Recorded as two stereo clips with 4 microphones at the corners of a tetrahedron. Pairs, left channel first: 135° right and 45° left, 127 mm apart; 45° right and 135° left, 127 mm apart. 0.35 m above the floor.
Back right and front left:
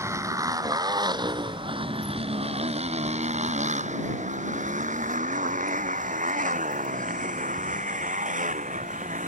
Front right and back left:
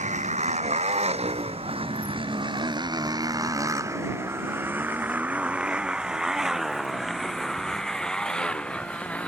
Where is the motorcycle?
115° left; by 9.3 s 35° left.